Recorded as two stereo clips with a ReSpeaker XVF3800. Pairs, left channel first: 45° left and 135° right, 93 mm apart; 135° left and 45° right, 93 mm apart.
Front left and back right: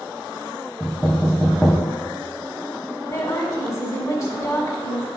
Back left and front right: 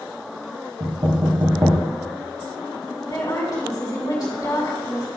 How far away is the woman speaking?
About 2 m.